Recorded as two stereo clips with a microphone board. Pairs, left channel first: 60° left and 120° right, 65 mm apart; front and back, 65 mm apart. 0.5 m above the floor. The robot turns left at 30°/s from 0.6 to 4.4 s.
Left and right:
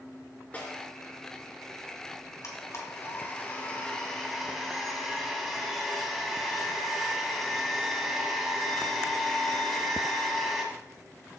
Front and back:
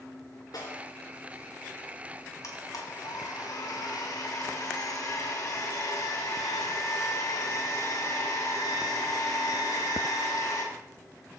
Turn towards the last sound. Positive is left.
turn(degrees=-30)